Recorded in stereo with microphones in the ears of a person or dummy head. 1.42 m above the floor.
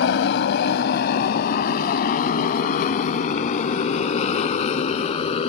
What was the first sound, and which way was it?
A motorcycle, 70° left (ahead or behind).